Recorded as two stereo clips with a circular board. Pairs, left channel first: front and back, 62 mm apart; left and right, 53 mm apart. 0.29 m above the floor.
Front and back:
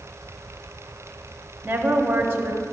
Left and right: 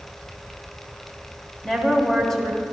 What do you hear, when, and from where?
1.6 s a woman speaking: 165° left, 1.1 m